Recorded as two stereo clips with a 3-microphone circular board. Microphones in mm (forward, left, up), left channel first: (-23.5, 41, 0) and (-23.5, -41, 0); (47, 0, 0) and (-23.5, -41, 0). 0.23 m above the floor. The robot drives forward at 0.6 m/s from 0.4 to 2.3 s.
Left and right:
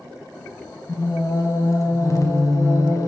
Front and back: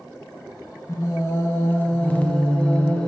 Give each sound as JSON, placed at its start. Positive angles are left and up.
{"t": 0.9, "sound": "singing", "azimuth_deg": 60, "distance_m": 1.8}